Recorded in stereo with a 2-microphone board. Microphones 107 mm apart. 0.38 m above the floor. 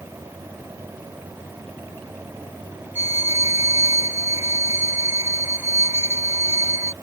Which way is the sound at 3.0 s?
20° right (ahead or behind).